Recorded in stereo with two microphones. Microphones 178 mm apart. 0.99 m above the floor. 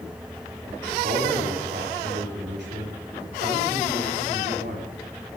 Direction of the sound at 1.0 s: 75° right (ahead or behind).